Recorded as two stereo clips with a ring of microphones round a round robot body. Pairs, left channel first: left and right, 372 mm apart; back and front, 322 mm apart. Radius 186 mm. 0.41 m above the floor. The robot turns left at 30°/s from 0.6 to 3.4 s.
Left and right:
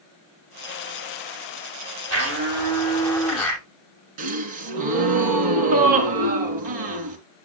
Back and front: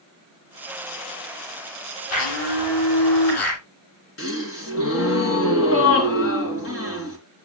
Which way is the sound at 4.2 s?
120° right.